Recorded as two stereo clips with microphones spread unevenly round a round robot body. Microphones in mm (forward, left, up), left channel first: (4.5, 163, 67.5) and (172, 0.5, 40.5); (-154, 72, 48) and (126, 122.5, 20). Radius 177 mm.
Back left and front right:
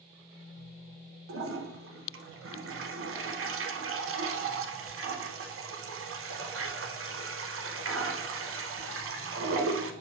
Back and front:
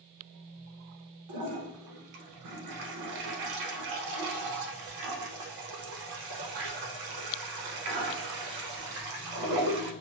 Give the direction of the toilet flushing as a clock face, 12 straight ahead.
12 o'clock.